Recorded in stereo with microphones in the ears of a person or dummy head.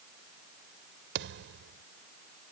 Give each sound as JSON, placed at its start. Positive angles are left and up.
{"t": 1.1, "sound": "a thud", "side_deg": -70}